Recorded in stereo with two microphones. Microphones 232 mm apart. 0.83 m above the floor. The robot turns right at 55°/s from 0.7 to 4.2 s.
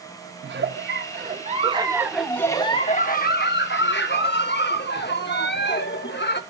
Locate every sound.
0.4 s a giggle: 85° right, 0.7 m; by 6.4 s 110° left, 0.7 m